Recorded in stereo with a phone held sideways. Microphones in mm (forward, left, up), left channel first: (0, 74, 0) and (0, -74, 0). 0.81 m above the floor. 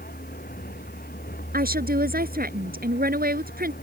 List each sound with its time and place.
0.0 s a vehicle: 85° left; by 3.8 s 90° left
1.5 s a woman speaking: 85° right